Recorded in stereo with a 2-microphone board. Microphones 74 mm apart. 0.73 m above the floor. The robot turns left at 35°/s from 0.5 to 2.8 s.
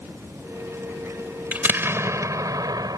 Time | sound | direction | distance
1.5 | an explosion | 25° right | ?